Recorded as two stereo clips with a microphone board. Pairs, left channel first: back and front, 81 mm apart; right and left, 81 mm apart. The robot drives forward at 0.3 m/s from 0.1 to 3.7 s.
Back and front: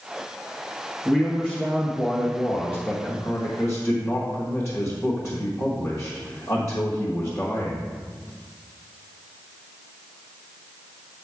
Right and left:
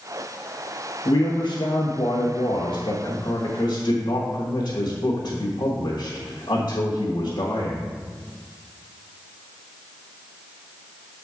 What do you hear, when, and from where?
1.1 s a man speaking: 90° right, 1.1 m; by 8.0 s 125° right, 1.3 m